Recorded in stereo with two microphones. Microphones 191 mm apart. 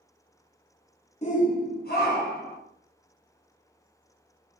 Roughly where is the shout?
Left.